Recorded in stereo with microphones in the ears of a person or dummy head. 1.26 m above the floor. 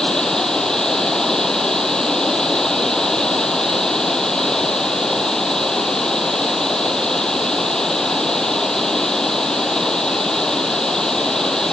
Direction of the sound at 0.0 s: 5° left (ahead or behind).